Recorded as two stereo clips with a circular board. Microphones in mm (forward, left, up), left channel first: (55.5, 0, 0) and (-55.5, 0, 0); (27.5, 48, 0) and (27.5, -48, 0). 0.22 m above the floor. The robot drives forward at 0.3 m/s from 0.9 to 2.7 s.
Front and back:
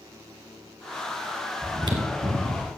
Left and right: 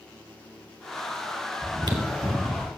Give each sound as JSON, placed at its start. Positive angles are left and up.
{"t": 1.6, "sound": "chewing", "azimuth_deg": -130, "distance_m": 1.8}